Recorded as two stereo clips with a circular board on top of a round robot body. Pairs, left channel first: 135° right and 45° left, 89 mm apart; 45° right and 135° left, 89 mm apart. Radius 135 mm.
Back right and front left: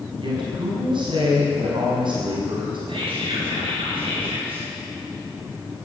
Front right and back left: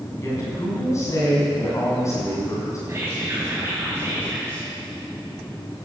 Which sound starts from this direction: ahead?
A woman speaking, at 0.2 s.